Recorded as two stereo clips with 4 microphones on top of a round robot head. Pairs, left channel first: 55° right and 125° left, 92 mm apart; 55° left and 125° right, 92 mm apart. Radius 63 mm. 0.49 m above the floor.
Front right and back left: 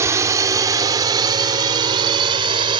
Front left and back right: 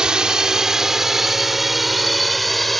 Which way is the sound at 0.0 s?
160° left.